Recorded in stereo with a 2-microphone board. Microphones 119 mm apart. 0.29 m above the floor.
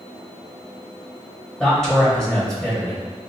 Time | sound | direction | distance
1.6 | a man speaking | 5° left (ahead or behind) | 1.2 m